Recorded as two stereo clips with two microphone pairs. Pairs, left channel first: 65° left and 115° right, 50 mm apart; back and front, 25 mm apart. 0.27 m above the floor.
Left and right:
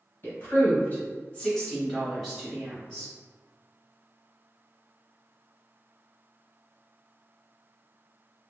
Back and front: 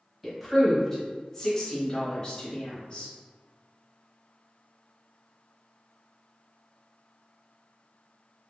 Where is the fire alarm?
I don't hear a fire alarm.